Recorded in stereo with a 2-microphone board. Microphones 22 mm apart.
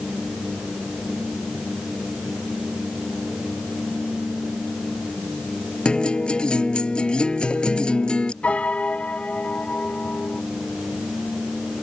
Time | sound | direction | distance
5.8 | a guitar | 45° left (ahead or behind) | ?
8.4 | a piano | 70° left (ahead or behind) | ?